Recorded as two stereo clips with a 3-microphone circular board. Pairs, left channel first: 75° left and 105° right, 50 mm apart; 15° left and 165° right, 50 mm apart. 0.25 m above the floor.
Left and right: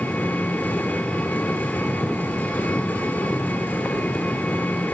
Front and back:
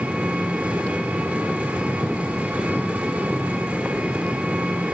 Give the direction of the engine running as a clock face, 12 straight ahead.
8 o'clock.